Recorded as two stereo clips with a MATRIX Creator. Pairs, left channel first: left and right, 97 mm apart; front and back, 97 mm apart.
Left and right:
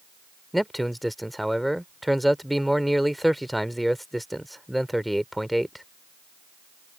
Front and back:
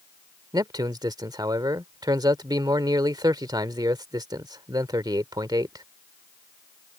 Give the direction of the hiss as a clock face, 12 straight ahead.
No hiss in this recording.